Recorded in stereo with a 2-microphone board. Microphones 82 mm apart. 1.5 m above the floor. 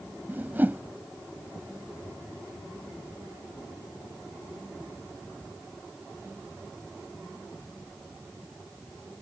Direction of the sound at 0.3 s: 20° right (ahead or behind).